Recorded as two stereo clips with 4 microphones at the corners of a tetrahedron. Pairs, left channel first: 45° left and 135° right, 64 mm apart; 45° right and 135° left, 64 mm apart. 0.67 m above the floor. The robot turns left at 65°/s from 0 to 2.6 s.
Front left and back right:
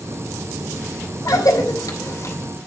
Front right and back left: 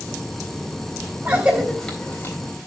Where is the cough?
75° left, 3.5 m; by 2.4 s 5° left, 3.5 m.